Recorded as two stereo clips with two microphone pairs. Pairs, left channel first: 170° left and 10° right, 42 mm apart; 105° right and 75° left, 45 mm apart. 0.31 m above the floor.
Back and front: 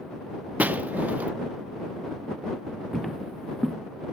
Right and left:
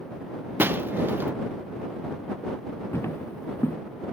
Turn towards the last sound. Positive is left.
turn(degrees=-105)